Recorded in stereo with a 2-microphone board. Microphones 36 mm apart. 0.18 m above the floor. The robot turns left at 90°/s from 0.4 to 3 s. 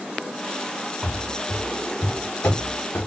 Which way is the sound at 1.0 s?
5° right (ahead or behind).